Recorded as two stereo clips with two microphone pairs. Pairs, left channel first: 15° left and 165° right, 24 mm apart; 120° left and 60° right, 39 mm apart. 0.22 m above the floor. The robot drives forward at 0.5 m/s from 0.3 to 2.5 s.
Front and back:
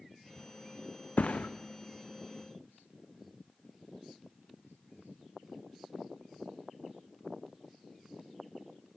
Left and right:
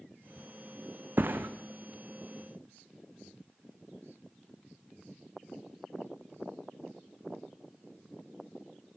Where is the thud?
20° right, 1.7 m.